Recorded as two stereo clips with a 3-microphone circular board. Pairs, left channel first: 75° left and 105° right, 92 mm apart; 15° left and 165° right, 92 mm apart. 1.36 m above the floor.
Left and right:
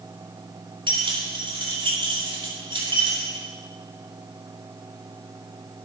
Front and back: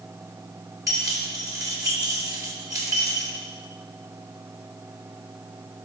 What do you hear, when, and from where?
0.9 s keys jangling: 115° right, 2.5 m